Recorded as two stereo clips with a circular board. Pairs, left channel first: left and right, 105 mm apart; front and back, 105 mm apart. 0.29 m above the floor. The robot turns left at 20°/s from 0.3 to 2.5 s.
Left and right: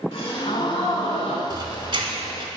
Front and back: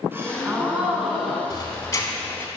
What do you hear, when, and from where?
0.1 s a gasp: 110° left, 1.0 m; by 1.4 s 90° left, 1.0 m
1.5 s a squeak: 50° right, 0.9 m; by 2.5 s 70° right, 0.9 m